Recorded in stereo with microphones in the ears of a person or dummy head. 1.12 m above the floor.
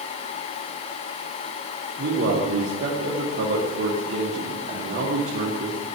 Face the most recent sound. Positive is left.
turn(degrees=-55)  # may be behind; listen again after turning